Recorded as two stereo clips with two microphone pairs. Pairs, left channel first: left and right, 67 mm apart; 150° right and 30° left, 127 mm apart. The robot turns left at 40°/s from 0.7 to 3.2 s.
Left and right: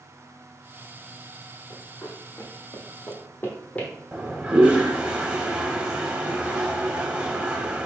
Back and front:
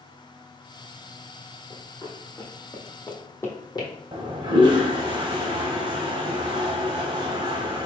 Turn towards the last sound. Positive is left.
turn(degrees=-15)